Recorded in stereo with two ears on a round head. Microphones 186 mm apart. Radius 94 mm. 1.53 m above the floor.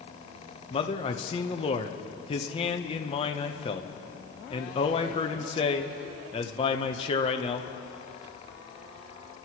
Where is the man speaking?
25° left (ahead or behind), 0.9 m.